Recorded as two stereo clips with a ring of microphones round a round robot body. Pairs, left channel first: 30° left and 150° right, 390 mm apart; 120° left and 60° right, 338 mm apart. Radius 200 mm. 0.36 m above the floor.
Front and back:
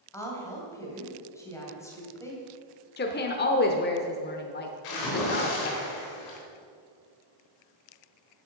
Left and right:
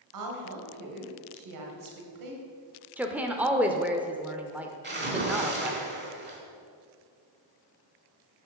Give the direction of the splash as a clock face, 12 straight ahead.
12 o'clock.